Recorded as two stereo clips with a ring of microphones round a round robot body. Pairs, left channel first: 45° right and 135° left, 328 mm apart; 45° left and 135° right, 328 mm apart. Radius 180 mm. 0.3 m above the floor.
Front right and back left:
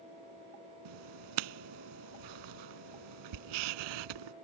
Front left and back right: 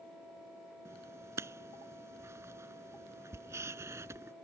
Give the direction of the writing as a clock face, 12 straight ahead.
7 o'clock.